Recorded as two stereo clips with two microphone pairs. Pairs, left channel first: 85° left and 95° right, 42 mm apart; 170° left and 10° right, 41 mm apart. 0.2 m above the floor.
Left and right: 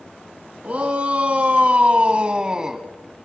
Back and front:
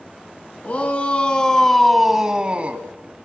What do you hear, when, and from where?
0.6 s a shout: 150° right, 2.5 m; by 2.9 s 25° right, 1.9 m